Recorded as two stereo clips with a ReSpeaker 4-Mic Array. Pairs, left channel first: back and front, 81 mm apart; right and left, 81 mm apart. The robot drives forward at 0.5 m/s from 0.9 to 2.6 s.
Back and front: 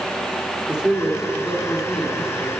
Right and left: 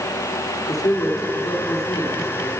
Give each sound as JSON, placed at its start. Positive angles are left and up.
{"t": 0.7, "sound": "a man speaking", "azimuth_deg": -75, "distance_m": 2.0}